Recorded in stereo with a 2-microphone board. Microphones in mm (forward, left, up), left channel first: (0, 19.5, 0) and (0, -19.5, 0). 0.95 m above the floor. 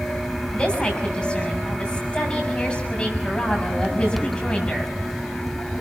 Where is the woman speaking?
30° left (ahead or behind), 7 m.